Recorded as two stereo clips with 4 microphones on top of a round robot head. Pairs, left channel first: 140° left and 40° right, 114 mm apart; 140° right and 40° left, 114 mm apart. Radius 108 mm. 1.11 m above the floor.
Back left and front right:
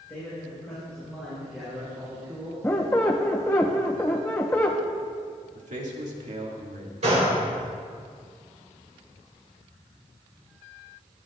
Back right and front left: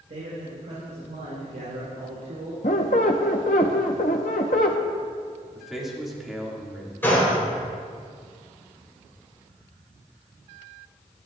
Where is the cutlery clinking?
I don't hear cutlery clinking.